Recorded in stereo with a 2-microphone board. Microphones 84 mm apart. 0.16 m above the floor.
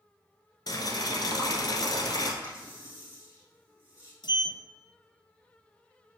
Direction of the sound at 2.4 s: 30° left (ahead or behind).